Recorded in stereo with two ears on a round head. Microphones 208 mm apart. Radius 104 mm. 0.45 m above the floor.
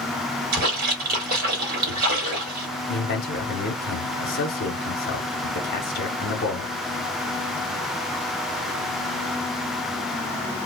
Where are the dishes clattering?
No dishes clattering in this recording.